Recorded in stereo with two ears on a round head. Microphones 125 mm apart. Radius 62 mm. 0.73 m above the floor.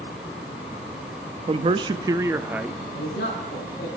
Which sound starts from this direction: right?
A man speaking, at 1.5 s.